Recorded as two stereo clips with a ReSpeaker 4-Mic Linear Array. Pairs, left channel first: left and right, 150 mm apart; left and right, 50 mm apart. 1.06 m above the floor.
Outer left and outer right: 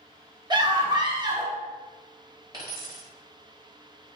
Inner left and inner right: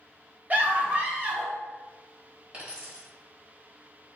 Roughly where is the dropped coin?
Right.